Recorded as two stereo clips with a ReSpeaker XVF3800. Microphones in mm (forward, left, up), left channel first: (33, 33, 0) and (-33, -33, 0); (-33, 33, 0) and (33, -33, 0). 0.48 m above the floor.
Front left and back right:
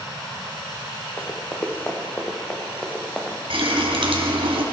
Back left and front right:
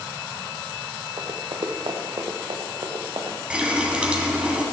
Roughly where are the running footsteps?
Ahead.